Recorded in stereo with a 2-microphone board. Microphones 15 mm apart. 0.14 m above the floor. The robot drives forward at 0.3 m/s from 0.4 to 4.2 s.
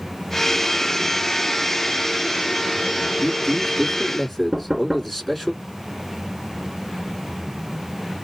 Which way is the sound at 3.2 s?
5° left (ahead or behind).